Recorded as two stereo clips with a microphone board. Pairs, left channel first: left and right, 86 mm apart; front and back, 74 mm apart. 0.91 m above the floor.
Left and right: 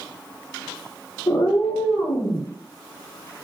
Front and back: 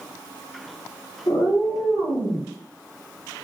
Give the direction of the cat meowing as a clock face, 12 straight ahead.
11 o'clock.